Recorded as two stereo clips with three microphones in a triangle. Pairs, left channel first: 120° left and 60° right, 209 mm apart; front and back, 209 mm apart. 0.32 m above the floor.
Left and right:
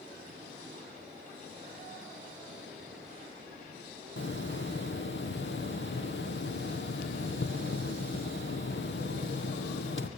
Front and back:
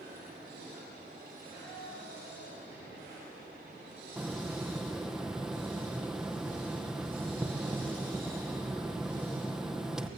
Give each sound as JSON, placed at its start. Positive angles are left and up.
{"t": 4.2, "sound": "a hiss", "azimuth_deg": 95, "distance_m": 1.9}